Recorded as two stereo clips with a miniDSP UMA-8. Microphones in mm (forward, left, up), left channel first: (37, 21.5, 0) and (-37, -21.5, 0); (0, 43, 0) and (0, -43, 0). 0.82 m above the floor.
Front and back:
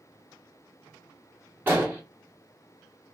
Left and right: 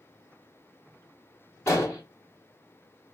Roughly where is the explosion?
Behind left.